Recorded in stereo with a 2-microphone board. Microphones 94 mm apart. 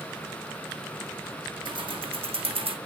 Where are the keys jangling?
55° right (ahead or behind), 1.1 m; by 2.8 s 70° right (ahead or behind), 1.2 m.